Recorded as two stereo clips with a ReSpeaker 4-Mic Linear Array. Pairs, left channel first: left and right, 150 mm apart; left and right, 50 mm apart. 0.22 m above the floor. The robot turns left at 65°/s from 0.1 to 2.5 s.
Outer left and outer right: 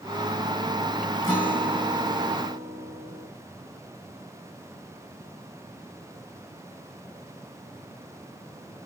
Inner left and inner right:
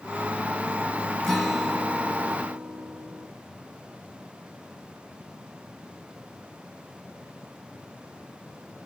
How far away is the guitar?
About 2 m.